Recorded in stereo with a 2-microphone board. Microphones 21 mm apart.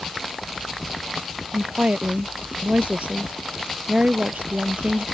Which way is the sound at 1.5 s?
70° right (ahead or behind).